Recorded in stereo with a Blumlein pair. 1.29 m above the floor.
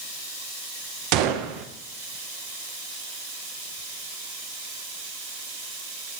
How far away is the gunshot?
About 0.8 m.